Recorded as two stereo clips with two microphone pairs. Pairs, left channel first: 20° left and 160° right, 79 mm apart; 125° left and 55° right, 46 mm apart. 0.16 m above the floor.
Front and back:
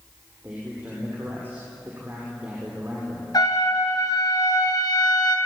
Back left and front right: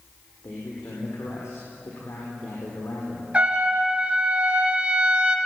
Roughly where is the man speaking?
Behind left.